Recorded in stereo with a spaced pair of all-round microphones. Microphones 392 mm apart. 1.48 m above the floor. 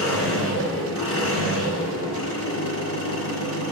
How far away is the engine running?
About 4.5 m.